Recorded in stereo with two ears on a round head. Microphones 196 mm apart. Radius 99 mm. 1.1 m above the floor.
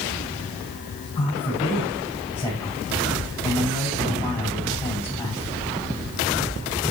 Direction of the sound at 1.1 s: 15° left (ahead or behind).